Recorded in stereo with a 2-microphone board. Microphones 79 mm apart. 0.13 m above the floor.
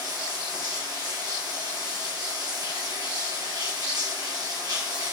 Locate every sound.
0.0 s running water: 60° right (ahead or behind), 1.8 m